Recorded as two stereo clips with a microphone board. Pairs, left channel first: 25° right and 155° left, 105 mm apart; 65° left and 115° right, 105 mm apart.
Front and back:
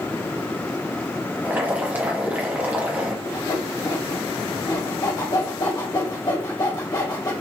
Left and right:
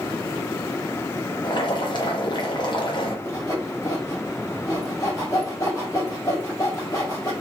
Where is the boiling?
90° left, 0.8 m.